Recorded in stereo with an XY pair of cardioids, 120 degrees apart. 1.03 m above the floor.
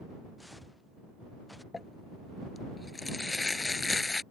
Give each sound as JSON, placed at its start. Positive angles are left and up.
{"t": 0.4, "sound": "footsteps", "azimuth_deg": 5}
{"t": 1.7, "sound": "crumpling", "azimuth_deg": 15}